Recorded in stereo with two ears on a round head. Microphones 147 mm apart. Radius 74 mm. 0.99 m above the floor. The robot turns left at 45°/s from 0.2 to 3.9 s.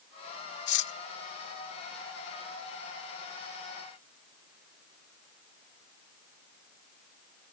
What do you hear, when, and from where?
0.7 s cutlery clinking: 80° left